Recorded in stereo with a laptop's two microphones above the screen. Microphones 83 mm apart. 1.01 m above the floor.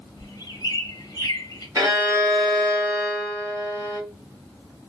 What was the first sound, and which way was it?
A bird, 50° left (ahead or behind).